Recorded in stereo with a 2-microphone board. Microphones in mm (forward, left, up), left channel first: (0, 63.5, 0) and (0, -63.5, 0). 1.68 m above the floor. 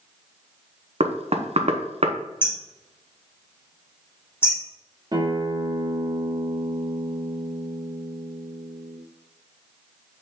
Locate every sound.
1.0 s knocking: 55° right (ahead or behind), 0.9 m
2.4 s hammering: 20° left (ahead or behind), 3 m
5.1 s a guitar: 35° right (ahead or behind), 1.9 m